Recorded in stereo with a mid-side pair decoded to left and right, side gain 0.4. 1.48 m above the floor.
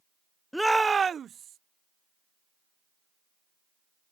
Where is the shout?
5° left; by 1.6 s 70° right.